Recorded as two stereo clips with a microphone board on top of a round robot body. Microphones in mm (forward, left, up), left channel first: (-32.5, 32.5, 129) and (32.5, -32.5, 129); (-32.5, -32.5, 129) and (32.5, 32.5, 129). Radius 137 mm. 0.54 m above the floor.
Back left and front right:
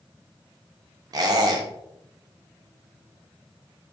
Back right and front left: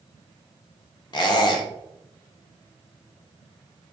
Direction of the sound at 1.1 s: 95° right.